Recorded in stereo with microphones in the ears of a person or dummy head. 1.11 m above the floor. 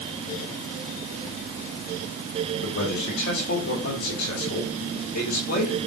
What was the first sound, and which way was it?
A man speaking, 45° left (ahead or behind).